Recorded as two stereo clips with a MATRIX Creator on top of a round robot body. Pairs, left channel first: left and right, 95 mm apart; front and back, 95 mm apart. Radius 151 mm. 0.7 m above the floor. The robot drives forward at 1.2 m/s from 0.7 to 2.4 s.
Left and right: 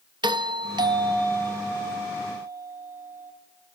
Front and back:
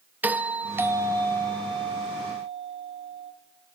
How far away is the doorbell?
About 1.4 m.